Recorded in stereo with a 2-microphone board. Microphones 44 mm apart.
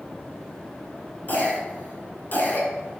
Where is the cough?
40° left (ahead or behind), 2.0 m.